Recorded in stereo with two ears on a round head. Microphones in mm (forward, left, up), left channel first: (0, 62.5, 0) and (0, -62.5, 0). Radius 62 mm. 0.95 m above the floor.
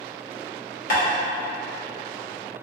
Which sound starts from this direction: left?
Tapping, at 0.9 s.